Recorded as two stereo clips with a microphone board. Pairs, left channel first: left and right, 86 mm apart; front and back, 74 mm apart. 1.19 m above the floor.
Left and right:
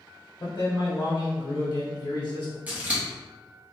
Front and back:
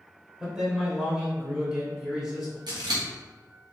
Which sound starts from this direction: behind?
Scissors, at 2.7 s.